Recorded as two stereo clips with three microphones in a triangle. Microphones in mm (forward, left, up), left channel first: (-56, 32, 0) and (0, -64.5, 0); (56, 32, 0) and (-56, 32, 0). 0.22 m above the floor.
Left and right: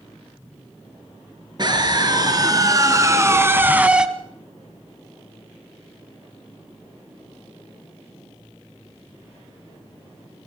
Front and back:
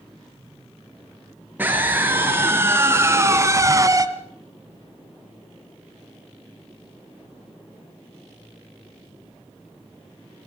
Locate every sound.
1.6 s a scream: 110° right, 4.5 m; by 4.1 s 140° right, 2.0 m